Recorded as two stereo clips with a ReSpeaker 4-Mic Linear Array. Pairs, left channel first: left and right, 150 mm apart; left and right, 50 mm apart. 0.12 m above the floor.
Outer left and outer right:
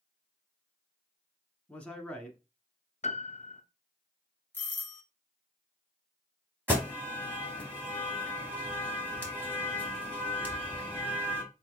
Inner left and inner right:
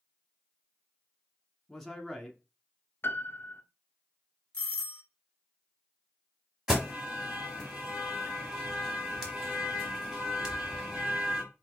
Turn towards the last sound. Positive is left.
turn(degrees=-15)  # may be behind; listen again after turning